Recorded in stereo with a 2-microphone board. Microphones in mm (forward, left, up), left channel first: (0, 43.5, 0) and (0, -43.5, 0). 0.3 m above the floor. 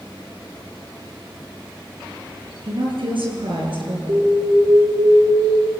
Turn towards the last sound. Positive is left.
turn(degrees=-45)  # may be behind; listen again after turning